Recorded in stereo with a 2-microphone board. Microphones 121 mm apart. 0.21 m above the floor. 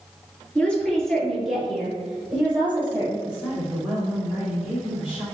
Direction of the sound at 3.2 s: Centre (ahead or behind).